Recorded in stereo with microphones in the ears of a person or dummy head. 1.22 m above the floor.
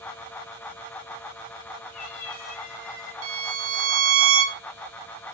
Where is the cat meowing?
35° left (ahead or behind), 1.4 m; by 3.1 s 50° left (ahead or behind), 2.5 m.